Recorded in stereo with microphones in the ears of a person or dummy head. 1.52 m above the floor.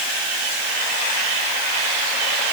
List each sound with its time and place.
Only background noise.